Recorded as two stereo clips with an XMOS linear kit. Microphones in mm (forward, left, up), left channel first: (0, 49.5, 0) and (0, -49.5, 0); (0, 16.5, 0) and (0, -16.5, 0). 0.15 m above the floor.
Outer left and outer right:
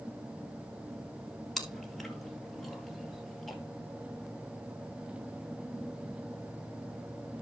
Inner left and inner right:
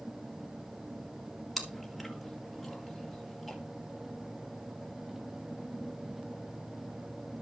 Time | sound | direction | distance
1.6 | chewing | centre (ahead or behind) | 1.8 m